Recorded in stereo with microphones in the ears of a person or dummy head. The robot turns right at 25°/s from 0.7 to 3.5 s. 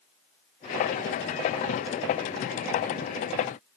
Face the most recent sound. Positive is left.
No sound to turn to.